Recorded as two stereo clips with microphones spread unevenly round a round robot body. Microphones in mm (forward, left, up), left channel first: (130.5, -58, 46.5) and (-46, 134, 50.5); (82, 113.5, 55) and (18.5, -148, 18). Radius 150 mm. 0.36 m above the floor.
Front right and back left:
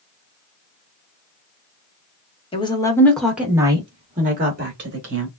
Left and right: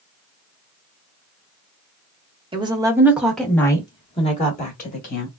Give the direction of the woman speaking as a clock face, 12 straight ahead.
3 o'clock.